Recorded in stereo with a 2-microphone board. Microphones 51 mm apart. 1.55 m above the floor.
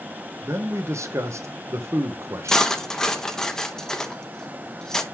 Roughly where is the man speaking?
Right.